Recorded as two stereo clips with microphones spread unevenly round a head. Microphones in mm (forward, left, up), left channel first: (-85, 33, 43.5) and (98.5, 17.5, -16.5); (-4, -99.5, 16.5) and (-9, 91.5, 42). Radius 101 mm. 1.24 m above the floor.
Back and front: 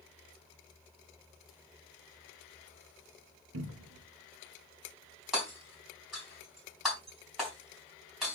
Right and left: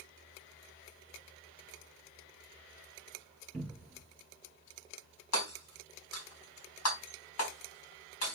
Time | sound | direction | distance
3.5 | a cupboard door | straight ahead | 1.7 m
5.3 | hammering | 95° right | 4 m